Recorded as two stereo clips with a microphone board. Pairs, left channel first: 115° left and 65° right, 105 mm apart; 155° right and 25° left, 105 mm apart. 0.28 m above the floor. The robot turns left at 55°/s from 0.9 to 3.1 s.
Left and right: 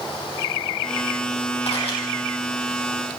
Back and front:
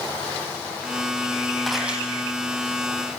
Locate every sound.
1.7 s a camera shutter: 115° left, 7 m; by 2.0 s 100° left, 7 m